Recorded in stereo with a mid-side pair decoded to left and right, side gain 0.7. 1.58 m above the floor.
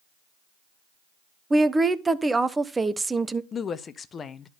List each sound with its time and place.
1.5 s a woman speaking: 15° right, 1.0 m
3.5 s a woman speaking: 30° left, 1.0 m